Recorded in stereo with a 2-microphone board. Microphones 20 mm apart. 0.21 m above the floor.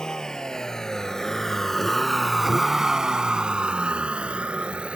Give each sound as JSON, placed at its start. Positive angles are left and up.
{"t": 0.0, "sound": "a vehicle", "side_deg": 35}